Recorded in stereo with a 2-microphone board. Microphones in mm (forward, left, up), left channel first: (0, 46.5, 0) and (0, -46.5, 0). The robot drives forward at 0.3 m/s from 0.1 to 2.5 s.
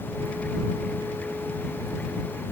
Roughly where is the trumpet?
No trumpet in this recording.